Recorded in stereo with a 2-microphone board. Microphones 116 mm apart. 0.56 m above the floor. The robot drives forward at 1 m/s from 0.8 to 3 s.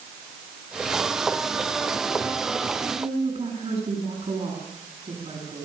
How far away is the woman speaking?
About 6.5 m.